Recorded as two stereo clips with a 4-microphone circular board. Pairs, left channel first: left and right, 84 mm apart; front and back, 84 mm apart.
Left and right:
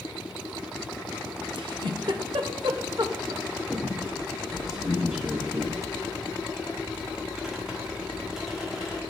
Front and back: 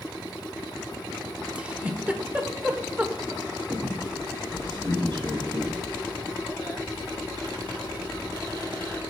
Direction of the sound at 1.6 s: 105° right.